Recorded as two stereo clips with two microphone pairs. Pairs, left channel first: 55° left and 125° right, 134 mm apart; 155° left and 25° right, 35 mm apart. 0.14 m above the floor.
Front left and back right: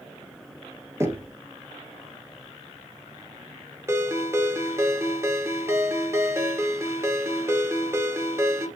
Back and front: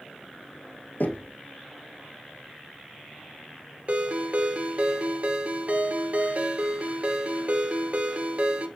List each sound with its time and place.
1.0 s knocking: 165° left, 1.7 m
3.9 s a ringtone: 60° right, 1.5 m